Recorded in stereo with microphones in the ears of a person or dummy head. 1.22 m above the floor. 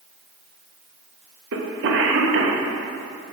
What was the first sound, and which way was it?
A cough, 60° right (ahead or behind).